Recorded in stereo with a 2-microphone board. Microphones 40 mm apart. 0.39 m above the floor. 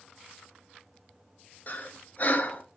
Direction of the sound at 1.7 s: 45° left (ahead or behind).